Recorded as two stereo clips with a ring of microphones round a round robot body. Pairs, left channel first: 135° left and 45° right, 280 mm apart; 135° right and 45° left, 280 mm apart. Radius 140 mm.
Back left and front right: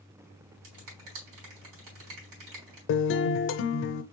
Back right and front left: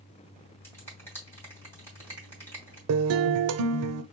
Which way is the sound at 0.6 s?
55° right.